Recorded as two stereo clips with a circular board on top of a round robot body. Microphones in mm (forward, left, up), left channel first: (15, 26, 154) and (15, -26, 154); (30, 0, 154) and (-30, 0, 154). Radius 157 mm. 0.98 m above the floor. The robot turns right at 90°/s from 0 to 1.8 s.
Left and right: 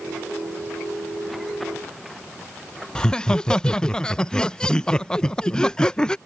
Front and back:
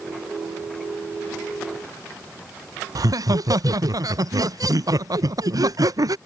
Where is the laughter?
165° left.